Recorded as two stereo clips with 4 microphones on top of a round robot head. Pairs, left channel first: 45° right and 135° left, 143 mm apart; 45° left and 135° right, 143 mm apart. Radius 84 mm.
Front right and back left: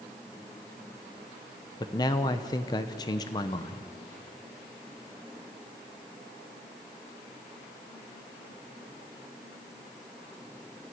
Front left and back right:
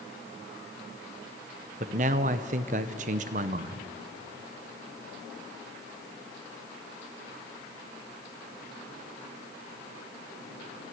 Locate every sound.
1.8 s a man speaking: 110° right, 0.7 m